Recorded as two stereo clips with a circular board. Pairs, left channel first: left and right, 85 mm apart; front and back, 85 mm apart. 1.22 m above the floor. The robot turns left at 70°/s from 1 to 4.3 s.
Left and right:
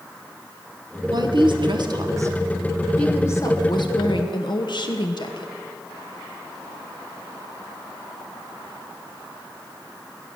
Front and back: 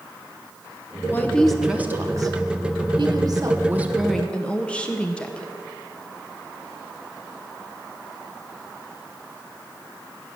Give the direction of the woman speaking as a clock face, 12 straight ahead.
2 o'clock.